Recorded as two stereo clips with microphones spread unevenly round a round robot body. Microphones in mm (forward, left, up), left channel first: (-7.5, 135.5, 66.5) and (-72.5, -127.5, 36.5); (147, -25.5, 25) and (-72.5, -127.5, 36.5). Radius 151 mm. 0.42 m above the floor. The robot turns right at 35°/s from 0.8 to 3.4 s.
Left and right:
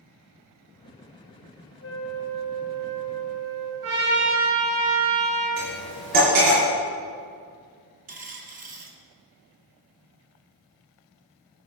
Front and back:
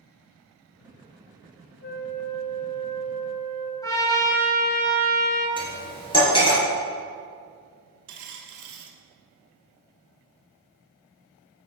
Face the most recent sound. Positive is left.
turn(degrees=-165)